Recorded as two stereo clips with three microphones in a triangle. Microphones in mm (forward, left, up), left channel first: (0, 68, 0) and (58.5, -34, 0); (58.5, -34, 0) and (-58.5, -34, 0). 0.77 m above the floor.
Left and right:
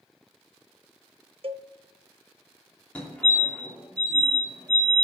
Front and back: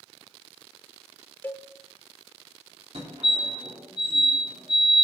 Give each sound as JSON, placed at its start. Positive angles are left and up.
{"t": 1.4, "sound": "a cowbell", "azimuth_deg": -70, "distance_m": 0.5}
{"t": 3.0, "sound": "a fire alarm", "azimuth_deg": -165, "distance_m": 3.0}